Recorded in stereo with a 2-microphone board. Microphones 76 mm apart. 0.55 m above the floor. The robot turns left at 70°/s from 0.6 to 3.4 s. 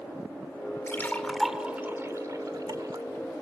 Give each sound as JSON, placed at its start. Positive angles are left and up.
{"t": 0.9, "sound": "a splash", "side_deg": 35, "distance_m": 1.6}